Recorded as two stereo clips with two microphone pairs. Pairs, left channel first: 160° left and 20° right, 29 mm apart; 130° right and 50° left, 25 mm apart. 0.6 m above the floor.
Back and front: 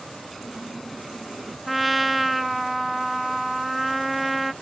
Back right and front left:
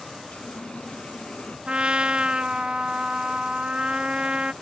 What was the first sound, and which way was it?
A running tap, 115° right.